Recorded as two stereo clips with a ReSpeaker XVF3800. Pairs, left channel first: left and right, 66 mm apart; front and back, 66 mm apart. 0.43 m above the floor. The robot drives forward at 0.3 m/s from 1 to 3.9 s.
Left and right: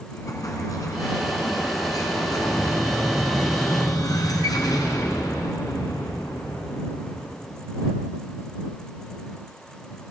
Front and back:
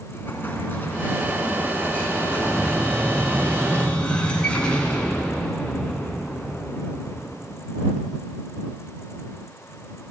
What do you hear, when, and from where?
0.1 s an explosion: 60° left, 4 m; by 7.5 s 70° left, 3.5 m